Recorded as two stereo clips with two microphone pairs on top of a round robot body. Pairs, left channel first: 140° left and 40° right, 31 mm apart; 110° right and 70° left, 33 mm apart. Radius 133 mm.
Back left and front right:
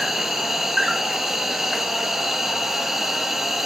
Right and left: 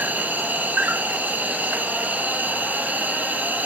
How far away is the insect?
About 0.8 m.